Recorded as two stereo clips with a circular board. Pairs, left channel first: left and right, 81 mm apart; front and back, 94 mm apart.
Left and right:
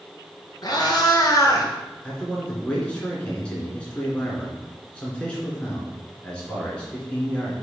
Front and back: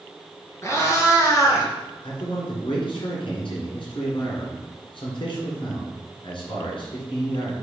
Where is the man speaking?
15° left, 3 m.